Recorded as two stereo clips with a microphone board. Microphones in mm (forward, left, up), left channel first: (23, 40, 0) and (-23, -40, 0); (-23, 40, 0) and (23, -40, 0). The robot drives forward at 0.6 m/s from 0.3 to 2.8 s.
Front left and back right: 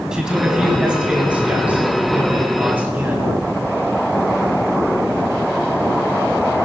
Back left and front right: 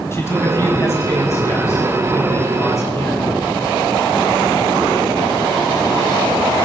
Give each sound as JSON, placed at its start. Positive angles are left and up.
{"t": 0.1, "sound": "a man speaking", "azimuth_deg": 160, "distance_m": 2.0}